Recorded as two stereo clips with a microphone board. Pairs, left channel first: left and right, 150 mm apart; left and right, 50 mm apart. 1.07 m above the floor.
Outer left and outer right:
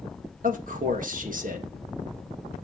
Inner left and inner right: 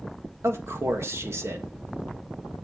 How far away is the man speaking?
About 1.6 m.